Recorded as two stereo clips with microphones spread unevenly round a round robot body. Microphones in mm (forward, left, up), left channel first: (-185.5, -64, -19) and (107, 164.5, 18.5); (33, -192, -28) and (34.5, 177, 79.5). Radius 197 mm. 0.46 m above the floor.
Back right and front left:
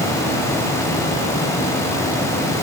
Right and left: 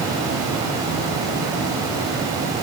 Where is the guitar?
No guitar in this recording.